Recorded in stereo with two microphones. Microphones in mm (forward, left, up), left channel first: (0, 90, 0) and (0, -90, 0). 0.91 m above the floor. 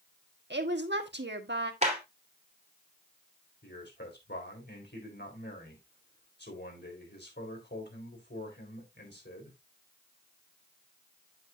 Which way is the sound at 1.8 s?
40° right (ahead or behind).